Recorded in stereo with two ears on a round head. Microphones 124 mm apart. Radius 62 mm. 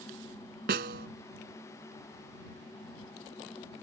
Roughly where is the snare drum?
Right.